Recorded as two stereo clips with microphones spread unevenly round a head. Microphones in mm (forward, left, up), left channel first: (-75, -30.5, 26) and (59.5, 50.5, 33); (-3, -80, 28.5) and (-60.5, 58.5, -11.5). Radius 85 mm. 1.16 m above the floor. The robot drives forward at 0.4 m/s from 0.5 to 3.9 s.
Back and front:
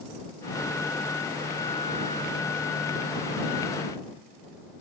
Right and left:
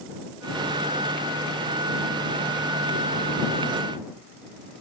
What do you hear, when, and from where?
Only background noise.